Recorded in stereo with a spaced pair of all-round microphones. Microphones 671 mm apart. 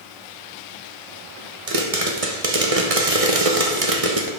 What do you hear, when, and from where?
1.7 s a pop: 55° right (ahead or behind), 1.3 m